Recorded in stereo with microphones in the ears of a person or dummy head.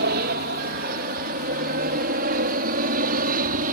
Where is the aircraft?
50° right (ahead or behind); by 3.8 s 45° right (ahead or behind).